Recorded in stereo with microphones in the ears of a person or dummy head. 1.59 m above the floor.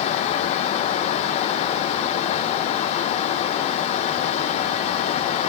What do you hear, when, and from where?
Only background noise.